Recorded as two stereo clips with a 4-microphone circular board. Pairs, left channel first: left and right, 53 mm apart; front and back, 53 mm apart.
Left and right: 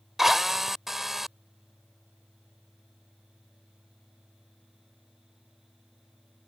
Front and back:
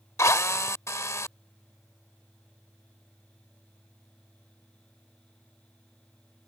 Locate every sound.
0.2 s a drill: 5° right